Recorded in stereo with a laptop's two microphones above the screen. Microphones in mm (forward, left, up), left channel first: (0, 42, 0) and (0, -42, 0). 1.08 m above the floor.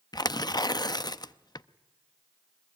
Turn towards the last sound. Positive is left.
turn(degrees=55)  # may be behind; listen again after turning